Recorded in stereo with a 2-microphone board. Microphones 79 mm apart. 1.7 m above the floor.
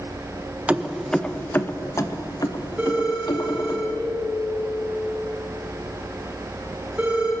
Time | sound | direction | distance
0.7 | keys jangling | 15° right (ahead or behind) | 1.0 m
2.8 | a phone ringing | 20° right (ahead or behind) | 5.5 m